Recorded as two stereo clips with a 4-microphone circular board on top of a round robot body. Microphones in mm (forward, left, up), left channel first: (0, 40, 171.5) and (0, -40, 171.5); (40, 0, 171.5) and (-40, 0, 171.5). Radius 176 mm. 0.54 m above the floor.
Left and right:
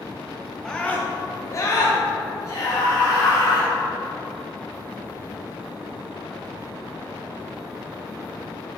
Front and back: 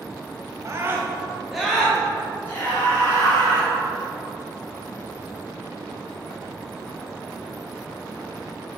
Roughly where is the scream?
Behind.